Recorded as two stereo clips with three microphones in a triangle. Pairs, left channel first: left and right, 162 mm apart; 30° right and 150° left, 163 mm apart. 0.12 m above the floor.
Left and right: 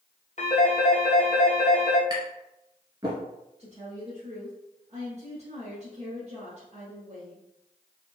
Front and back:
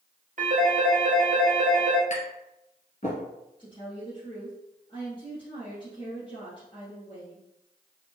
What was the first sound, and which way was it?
A phone ringing, 125° left.